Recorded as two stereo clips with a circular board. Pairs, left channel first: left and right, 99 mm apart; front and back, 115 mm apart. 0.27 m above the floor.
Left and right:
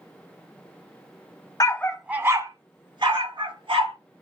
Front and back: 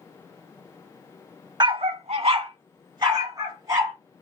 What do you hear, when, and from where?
1.6 s a dog barking: 135° left, 0.5 m; by 4.0 s 120° right, 2.5 m